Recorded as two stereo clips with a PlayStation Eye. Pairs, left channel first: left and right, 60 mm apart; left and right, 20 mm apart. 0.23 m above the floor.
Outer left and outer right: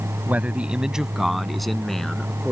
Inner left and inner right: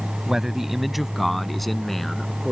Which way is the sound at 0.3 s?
25° right (ahead or behind).